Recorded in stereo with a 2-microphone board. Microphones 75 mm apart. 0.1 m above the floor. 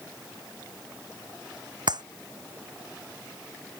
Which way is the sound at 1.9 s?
65° right (ahead or behind).